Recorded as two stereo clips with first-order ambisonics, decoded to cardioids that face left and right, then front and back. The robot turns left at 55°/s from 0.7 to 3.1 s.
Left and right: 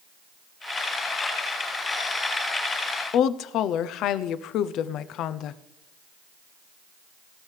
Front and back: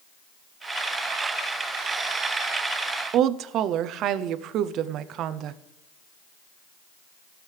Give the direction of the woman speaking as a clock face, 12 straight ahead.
8 o'clock.